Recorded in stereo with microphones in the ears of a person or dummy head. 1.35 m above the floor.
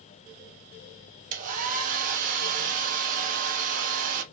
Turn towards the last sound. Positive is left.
turn(degrees=-45)  # may be behind; listen again after turning